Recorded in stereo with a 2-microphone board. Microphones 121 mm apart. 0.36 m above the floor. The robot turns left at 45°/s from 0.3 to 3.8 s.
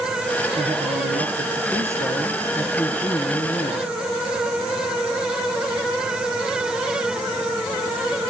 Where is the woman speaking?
95° right, 8.5 m; by 3.9 s 120° left, 8.5 m.